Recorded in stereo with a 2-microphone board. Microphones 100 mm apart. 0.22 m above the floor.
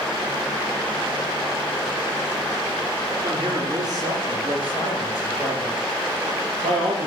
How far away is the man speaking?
About 3.5 m.